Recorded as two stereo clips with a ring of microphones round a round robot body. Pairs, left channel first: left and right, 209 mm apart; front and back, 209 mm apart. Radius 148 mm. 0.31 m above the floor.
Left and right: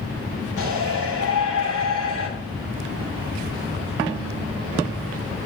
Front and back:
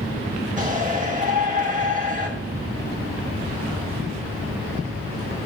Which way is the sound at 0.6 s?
130° left.